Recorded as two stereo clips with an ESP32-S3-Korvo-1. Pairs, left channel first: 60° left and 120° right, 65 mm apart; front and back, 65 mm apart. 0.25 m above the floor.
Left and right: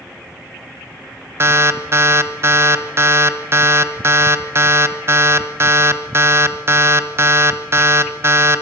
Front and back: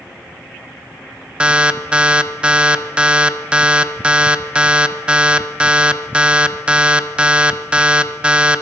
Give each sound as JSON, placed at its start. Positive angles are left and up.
{"t": 1.4, "sound": "an alarm", "azimuth_deg": -115, "distance_m": 0.9}